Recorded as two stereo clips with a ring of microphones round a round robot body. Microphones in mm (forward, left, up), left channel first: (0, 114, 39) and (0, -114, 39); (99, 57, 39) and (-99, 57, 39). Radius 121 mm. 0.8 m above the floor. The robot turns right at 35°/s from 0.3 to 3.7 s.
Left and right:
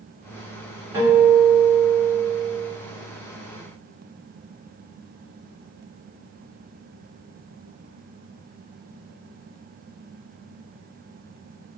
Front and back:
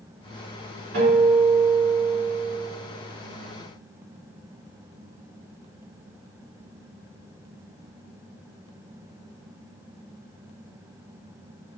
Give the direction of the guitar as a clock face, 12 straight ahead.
6 o'clock.